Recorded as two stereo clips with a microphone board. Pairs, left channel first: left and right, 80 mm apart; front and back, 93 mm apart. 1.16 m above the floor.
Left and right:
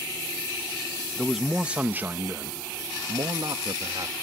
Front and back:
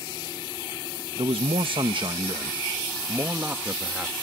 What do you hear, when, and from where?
1.2 s a man speaking: straight behind; by 4.1 s 105° right